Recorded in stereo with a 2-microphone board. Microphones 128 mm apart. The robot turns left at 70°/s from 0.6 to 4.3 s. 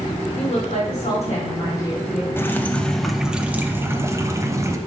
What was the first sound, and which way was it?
A woman speaking, 110° left.